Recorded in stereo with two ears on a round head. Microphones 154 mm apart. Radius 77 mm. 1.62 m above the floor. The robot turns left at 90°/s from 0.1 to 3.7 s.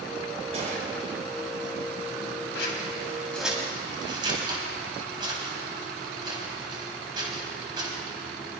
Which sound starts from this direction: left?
Scissors, at 2.5 s.